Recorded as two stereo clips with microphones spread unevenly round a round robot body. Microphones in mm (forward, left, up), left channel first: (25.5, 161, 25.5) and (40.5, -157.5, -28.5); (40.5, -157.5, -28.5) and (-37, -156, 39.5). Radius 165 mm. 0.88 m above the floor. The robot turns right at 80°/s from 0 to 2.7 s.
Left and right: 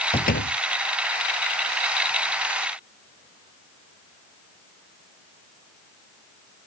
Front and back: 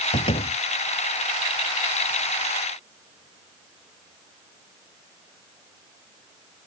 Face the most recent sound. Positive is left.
turn(degrees=-140)